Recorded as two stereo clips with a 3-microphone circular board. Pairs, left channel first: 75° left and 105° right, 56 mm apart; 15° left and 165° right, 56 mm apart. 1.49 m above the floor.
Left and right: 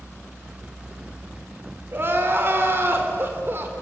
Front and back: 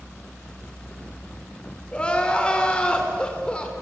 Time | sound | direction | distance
1.9 | crying | 55° right | 3 m